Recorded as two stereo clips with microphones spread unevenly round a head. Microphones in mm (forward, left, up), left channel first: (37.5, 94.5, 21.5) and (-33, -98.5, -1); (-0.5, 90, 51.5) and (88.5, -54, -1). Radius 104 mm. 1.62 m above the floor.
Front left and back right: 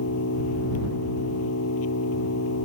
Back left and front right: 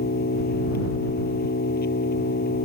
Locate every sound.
0.0 s an engine running: 90° left